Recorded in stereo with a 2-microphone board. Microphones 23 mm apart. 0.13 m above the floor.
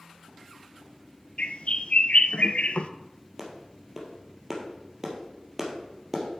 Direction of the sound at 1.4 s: 60° left (ahead or behind).